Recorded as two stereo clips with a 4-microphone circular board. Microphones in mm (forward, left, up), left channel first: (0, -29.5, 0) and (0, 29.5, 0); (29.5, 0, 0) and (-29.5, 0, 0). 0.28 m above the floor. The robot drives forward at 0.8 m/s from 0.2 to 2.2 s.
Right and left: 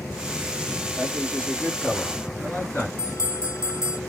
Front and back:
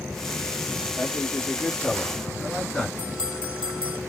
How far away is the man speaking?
About 1.7 m.